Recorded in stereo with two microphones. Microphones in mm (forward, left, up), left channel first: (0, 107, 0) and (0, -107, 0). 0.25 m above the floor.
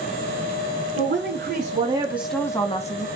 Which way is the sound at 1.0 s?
60° right (ahead or behind).